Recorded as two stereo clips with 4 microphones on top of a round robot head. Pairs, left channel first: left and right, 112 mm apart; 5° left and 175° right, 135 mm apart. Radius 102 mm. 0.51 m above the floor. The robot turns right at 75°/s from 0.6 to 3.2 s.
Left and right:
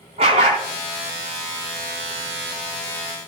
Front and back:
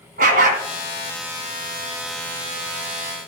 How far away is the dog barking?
About 1.7 m.